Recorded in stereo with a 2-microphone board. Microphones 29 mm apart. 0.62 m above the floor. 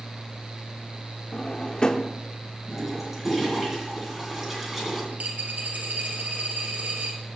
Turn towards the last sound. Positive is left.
turn(degrees=-65)  # may be behind; listen again after turning